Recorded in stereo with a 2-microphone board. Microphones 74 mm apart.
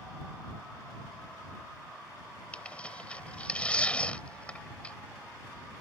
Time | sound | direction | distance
2.5 | tearing paper | 15° left (ahead or behind) | ?